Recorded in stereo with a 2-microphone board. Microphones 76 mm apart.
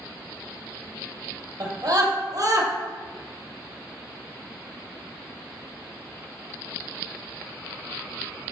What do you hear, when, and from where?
1.6 s a scream: 60° right (ahead or behind), 3 m; by 2.7 s 50° right (ahead or behind), 2.5 m